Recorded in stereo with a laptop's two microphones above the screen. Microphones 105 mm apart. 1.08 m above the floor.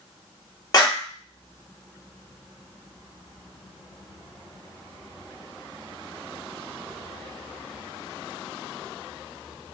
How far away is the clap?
About 1.3 m.